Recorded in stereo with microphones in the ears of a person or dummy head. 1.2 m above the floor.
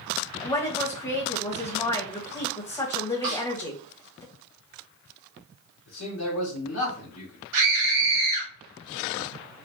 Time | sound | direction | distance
0.4 | a woman speaking | 15° left (ahead or behind) | 1.1 m
3.2 | a snare drum | 45° right (ahead or behind) | 1.6 m
5.9 | a man speaking | 55° left (ahead or behind) | 1.2 m
7.5 | a scream | 80° right | 1.4 m